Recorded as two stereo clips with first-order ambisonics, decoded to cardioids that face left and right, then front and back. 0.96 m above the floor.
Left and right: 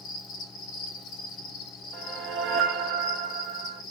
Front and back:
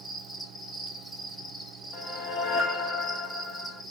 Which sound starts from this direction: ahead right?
A whoosh, at 1.9 s.